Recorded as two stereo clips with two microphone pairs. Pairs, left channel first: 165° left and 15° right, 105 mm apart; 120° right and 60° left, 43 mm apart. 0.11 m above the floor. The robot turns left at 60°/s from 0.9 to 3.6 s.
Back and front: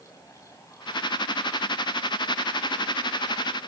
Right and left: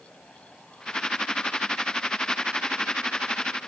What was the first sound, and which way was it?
Only background noise.